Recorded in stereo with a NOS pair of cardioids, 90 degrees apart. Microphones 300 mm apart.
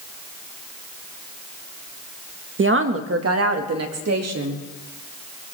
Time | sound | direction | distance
2.6 | a woman speaking | 40° right | 1.6 m